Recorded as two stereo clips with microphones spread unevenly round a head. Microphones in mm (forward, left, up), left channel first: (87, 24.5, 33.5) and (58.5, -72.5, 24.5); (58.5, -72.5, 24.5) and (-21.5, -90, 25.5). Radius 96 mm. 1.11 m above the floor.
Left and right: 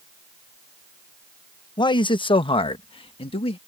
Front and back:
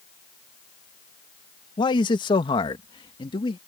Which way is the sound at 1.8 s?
35° left.